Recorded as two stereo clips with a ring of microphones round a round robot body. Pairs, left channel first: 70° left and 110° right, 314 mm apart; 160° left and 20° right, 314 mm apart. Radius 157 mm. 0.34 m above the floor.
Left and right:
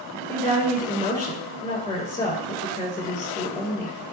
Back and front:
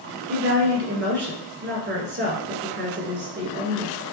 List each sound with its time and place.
0.3 s a woman speaking: 5° right, 1.4 m